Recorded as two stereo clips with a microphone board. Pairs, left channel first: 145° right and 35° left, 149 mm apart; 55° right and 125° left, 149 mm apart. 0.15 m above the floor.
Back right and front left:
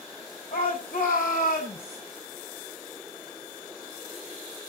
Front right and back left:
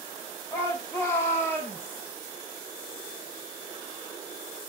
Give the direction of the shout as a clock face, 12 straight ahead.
4 o'clock.